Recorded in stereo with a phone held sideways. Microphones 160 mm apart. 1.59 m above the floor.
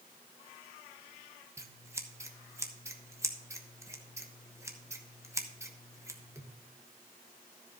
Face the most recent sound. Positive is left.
turn(degrees=-20)  # may be behind; listen again after turning